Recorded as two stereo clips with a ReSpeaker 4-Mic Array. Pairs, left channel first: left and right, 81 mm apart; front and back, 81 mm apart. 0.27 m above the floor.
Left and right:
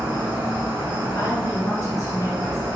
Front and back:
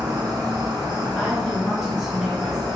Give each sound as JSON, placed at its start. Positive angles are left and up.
{"t": 0.0, "sound": "an insect", "azimuth_deg": -160, "distance_m": 1.3}
{"t": 1.1, "sound": "a woman speaking", "azimuth_deg": 95, "distance_m": 1.6}